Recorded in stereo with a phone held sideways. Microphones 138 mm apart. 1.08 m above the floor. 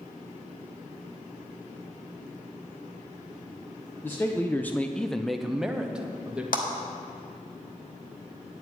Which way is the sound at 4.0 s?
15° left (ahead or behind).